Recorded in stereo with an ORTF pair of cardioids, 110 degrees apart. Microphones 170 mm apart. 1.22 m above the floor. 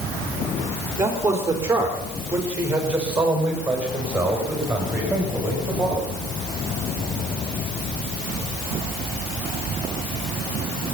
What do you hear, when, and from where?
1.0 s a man speaking: 15° right, 3.5 m; by 6.0 s 5° right, 9 m